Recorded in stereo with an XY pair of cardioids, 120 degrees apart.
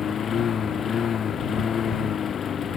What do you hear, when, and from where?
0.0 s a lawn mower: 45° left